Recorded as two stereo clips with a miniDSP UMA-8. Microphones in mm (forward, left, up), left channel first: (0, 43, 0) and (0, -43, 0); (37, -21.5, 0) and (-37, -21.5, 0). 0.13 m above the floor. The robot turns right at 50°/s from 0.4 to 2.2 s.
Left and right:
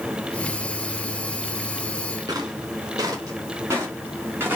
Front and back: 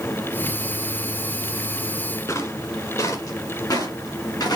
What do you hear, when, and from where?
2.3 s footsteps: 45° right, 4 m; by 4.6 s 25° right, 3.5 m